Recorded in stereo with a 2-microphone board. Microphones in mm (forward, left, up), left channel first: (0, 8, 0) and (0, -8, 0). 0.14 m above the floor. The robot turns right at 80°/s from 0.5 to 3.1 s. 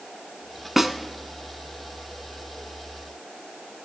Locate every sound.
0.8 s a snare drum: 20° right (ahead or behind), 0.8 m